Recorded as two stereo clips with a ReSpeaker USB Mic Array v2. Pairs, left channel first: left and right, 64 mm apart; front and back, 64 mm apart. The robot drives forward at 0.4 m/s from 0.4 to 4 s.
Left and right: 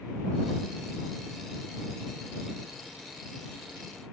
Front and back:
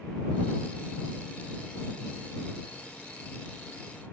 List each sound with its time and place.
Only background noise.